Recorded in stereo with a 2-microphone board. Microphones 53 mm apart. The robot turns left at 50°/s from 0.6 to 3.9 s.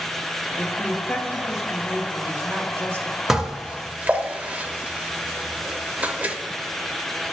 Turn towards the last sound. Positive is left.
turn(degrees=-25)  # may be behind; listen again after turning